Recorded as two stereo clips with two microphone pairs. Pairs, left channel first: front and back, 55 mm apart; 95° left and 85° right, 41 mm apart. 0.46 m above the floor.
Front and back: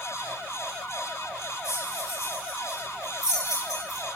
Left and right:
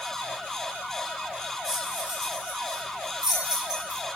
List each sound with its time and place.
1.6 s keys jangling: 5° right, 9.5 m; by 4.0 s 10° right, 11 m